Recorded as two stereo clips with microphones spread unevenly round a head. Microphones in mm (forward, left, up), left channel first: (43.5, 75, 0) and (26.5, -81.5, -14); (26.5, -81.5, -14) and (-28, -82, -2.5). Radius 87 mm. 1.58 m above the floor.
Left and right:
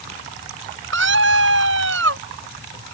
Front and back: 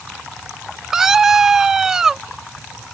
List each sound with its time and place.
0.9 s a scream: 100° right